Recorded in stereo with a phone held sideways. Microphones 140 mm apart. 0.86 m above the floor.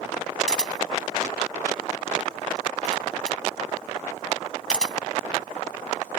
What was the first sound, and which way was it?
A camera shutter, 5° left (ahead or behind).